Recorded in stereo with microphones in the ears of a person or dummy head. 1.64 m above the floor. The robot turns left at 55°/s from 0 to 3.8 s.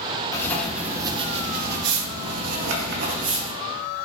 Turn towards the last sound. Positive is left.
turn(degrees=-175)